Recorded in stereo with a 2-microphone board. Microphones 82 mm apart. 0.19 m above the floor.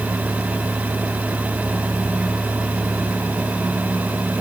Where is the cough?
I don't hear a cough.